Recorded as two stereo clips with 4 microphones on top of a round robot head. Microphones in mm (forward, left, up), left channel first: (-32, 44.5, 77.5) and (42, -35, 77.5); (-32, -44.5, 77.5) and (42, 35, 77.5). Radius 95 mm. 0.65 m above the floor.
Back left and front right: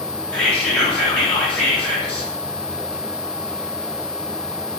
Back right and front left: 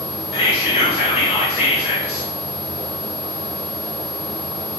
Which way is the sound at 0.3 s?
145° right.